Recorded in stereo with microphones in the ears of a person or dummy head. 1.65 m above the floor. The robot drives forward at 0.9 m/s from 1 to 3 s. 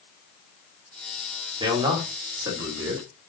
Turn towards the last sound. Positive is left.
turn(degrees=-20)  # may be behind; listen again after turning